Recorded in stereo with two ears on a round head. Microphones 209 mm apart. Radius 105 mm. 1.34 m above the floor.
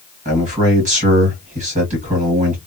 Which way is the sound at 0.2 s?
30° right (ahead or behind).